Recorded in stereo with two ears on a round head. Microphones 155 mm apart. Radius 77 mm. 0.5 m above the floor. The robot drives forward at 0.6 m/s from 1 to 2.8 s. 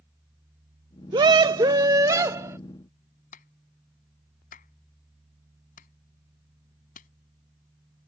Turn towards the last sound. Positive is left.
turn(degrees=50)  # may be behind; listen again after turning